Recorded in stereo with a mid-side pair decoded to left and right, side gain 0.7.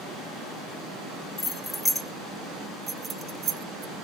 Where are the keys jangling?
20° left, 1.3 m; by 4.0 s 60° right, 1.1 m.